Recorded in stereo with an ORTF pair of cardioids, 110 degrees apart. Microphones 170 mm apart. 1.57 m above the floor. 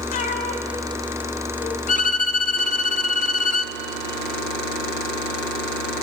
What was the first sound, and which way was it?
A cat meowing, 60° left.